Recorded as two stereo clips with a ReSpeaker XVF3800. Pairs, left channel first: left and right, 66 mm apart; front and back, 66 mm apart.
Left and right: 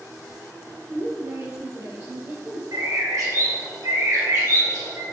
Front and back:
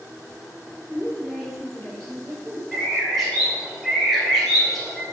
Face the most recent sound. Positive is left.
turn(degrees=-85)